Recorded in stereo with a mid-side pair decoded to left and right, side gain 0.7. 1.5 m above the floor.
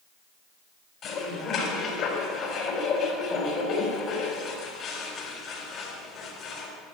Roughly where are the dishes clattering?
Ahead left.